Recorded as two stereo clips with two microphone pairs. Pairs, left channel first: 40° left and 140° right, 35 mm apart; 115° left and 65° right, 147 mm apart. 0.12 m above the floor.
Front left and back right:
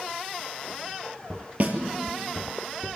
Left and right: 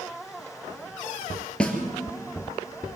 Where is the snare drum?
165° right, 2.5 m.